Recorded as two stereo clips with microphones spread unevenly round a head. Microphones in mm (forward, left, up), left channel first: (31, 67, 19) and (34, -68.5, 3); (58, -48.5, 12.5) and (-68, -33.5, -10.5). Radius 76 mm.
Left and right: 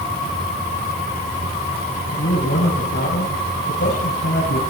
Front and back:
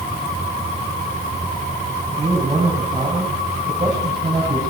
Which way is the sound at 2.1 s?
105° left.